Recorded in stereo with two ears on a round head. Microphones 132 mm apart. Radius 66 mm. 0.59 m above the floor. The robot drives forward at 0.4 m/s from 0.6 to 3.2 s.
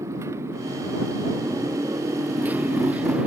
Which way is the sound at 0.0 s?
20° right (ahead or behind).